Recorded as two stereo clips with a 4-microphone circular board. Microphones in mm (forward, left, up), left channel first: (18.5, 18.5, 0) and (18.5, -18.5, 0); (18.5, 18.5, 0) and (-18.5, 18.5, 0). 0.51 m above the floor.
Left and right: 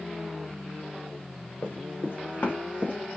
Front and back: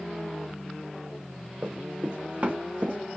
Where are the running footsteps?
110° left, 2 m; by 3.2 s 150° left, 1.9 m.